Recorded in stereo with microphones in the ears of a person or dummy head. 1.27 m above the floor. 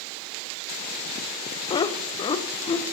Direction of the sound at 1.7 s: 25° left (ahead or behind).